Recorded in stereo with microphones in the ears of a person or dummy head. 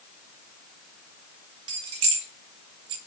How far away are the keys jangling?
About 1.3 m.